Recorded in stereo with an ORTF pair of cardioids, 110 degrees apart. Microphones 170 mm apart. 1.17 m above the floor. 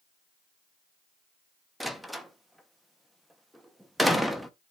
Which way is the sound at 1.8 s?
Straight ahead.